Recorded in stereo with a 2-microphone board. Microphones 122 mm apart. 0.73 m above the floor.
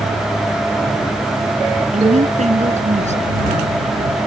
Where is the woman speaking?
80° right.